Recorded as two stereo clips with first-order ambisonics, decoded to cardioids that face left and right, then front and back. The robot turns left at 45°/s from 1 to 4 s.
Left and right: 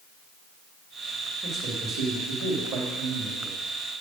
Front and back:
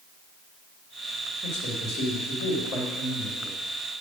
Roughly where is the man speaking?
Ahead.